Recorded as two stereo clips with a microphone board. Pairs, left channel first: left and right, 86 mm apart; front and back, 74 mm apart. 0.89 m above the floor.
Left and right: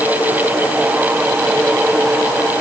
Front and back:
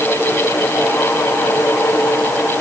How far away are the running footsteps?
No running footsteps in this recording.